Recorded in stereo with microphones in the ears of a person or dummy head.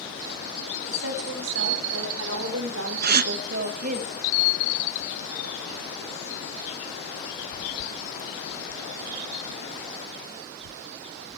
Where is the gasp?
55° right (ahead or behind), 0.8 m.